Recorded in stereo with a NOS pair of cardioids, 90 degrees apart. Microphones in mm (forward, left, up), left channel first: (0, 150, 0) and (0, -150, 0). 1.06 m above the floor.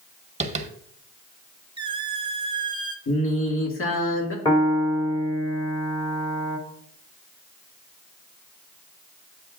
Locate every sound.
0.4 s tapping: 25° right, 1.3 m
1.8 s a squeak: 15° right, 1.1 m
3.1 s singing: 45° left, 2 m
4.5 s a piano: 15° left, 2.5 m